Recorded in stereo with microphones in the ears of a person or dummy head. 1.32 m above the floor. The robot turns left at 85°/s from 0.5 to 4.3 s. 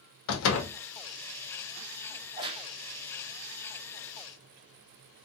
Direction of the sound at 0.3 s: 75° left (ahead or behind).